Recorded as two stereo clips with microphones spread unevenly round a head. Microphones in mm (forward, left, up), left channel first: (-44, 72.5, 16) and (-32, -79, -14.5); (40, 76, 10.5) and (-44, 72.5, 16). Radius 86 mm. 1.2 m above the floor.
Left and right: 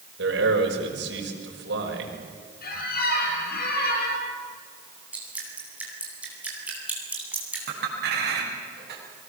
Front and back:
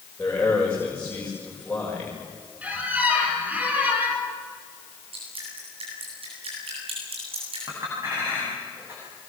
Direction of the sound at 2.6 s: 115° left.